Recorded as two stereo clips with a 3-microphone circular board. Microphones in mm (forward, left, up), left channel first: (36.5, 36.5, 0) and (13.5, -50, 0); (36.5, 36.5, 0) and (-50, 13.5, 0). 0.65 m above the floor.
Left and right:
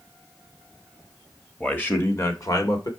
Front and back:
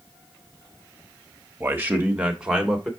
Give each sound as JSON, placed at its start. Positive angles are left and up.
{"t": 1.6, "sound": "a man speaking", "azimuth_deg": 145, "distance_m": 1.3}